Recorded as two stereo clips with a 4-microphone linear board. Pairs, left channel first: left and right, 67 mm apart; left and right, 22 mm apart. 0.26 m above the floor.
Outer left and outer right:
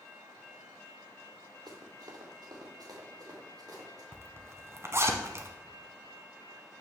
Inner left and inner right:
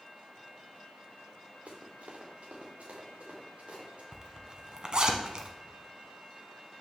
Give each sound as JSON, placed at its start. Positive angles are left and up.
{"t": 1.7, "sound": "running footsteps", "side_deg": -85, "distance_m": 2.5}
{"t": 4.1, "sound": "a zipper", "side_deg": -40, "distance_m": 1.0}